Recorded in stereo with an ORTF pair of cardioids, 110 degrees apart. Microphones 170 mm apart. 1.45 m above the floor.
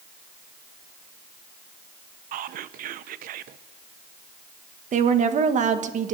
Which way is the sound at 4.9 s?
45° right.